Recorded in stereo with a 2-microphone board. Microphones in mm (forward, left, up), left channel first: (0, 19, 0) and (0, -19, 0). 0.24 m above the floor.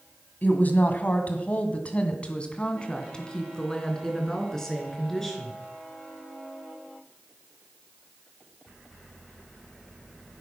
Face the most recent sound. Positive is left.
turn(degrees=10)  # may be behind; listen again after turning